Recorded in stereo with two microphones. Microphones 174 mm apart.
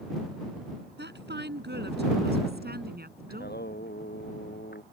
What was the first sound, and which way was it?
A woman speaking, 75° right (ahead or behind).